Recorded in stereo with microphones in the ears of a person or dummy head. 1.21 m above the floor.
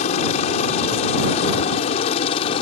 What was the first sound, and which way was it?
A helicopter, 45° left (ahead or behind).